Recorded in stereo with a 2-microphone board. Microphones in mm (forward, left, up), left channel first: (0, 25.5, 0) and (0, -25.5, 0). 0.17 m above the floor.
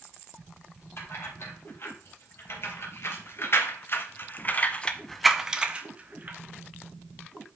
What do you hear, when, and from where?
1.0 s keys jangling: 55° left (ahead or behind), 3.5 m; by 6.4 s 35° right (ahead or behind), 1.4 m